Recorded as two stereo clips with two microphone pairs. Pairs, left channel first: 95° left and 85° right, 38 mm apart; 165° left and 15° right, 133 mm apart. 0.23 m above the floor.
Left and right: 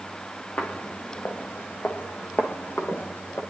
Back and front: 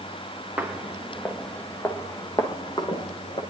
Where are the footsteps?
65° left, 1.4 m; by 3.4 s 120° left, 1.9 m.